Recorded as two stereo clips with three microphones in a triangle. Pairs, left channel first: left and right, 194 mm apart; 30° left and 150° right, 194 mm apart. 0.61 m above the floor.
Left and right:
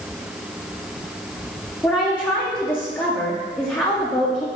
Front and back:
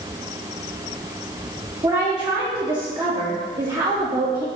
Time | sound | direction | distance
1.8 | a woman speaking | 165° left | 0.6 m